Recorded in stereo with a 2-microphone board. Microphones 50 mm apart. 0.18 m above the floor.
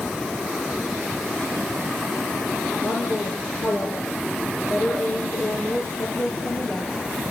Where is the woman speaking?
55° left (ahead or behind), 3.5 m.